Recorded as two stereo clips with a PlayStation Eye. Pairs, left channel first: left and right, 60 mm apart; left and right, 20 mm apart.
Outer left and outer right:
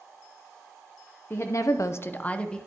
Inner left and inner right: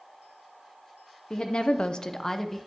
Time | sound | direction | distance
1.3 | a woman speaking | 45° left (ahead or behind) | 0.7 m